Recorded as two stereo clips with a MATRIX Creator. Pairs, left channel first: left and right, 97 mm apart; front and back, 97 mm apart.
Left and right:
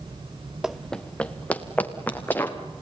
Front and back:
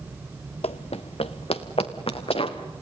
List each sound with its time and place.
0.6 s running footsteps: 5° right, 0.5 m; by 2.6 s 15° left, 3 m